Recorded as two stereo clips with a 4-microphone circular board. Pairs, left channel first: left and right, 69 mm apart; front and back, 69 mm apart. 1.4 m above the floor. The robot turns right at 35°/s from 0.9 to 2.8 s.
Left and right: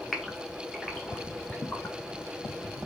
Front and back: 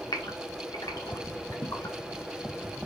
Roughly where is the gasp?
Ahead.